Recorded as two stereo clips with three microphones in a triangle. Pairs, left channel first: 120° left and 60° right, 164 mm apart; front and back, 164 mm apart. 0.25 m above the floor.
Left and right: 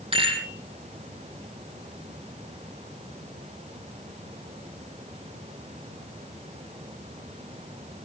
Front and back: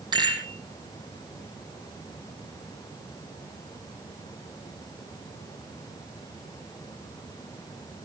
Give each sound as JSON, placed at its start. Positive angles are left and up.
{"t": 0.1, "sound": "a rattle", "azimuth_deg": -115, "distance_m": 4.0}